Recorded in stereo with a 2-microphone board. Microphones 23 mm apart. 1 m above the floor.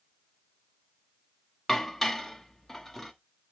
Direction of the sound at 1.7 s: 5° left (ahead or behind).